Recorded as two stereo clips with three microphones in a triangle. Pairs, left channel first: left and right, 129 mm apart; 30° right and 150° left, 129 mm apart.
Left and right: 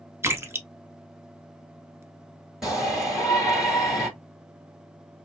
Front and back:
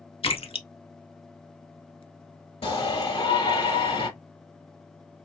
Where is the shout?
5° right, 3 m.